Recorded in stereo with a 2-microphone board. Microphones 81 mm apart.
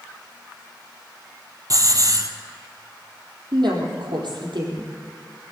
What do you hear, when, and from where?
1.7 s a hiss: 45° right (ahead or behind), 1.2 m
3.5 s a woman speaking: 70° right (ahead or behind), 3.5 m